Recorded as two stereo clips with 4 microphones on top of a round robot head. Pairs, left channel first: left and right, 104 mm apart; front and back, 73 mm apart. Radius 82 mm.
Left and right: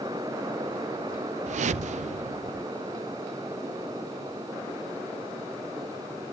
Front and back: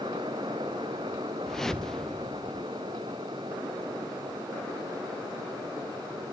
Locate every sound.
1.5 s a whoosh: 85° right, 0.6 m